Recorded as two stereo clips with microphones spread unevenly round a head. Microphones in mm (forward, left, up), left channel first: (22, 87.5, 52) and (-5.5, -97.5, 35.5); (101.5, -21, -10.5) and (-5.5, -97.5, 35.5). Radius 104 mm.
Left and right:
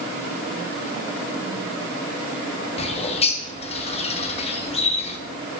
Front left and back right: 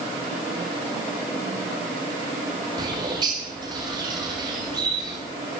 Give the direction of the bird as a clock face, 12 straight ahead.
7 o'clock.